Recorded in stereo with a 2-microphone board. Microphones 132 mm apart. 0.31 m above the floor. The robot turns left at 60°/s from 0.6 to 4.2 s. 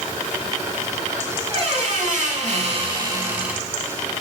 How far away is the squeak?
About 0.7 m.